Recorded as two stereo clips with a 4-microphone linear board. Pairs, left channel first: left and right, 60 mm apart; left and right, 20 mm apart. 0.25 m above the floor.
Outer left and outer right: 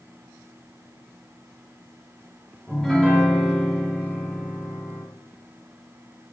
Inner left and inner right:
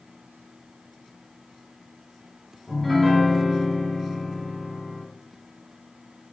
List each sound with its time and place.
2.7 s a piano: 5° left (ahead or behind), 1.4 m